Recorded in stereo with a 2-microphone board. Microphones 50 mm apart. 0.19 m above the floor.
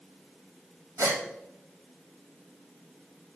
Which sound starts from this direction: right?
A gasp, at 1.0 s.